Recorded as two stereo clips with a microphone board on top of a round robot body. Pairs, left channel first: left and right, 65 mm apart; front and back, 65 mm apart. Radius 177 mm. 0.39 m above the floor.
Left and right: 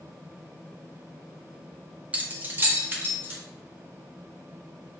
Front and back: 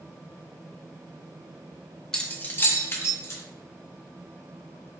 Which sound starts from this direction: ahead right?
Keys jangling, at 2.1 s.